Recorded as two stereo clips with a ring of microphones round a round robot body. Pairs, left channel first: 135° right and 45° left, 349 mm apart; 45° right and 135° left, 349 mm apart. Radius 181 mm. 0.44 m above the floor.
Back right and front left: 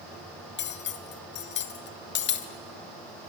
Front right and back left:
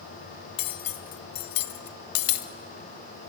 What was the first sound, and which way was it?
Cutlery clinking, 75° right.